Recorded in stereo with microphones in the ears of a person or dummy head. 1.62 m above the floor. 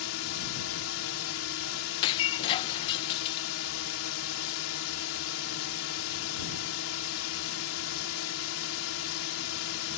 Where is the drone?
80° left.